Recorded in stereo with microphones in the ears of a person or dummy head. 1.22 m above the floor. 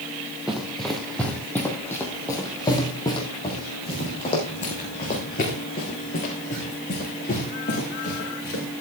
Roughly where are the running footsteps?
Centre.